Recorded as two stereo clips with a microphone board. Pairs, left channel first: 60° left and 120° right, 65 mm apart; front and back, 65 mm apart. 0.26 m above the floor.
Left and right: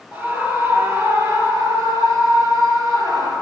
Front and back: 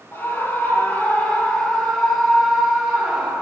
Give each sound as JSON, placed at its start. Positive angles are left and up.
{"t": 0.1, "sound": "a scream", "azimuth_deg": -60, "distance_m": 5.5}